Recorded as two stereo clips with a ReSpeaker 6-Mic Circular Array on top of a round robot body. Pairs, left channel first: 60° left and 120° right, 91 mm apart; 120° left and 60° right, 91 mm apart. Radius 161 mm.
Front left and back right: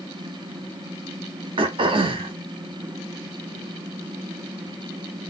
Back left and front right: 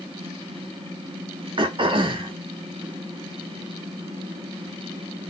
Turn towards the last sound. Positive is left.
turn(degrees=-90)